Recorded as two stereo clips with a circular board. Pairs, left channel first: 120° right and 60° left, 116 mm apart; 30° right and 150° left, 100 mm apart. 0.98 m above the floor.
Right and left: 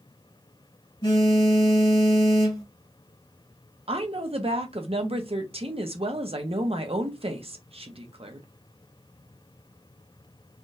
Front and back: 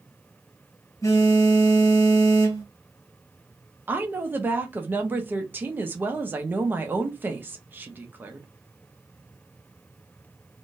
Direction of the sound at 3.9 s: 85° left.